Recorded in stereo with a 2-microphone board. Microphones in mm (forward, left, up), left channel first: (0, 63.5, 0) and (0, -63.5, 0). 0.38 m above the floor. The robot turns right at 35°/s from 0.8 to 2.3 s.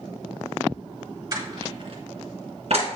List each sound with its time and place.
1.3 s crushing: 30° right (ahead or behind), 1.8 m; by 2.9 s 55° right (ahead or behind), 1.8 m